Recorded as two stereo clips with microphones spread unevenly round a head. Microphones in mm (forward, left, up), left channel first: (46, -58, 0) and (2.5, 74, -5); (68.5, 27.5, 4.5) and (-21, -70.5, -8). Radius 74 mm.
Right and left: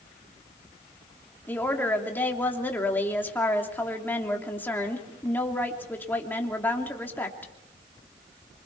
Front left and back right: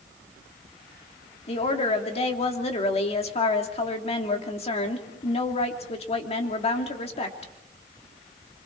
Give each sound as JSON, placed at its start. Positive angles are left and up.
{"t": 1.5, "sound": "a woman speaking", "azimuth_deg": 5, "distance_m": 3.0}